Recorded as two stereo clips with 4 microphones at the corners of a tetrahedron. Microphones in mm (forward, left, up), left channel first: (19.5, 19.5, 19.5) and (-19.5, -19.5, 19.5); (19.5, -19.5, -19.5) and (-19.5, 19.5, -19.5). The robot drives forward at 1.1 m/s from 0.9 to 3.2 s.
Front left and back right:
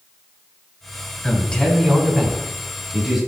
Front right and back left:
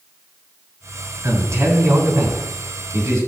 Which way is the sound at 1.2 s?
110° left.